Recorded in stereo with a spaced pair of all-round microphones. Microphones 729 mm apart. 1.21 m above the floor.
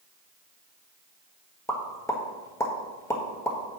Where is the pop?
5° left (ahead or behind), 1.4 m.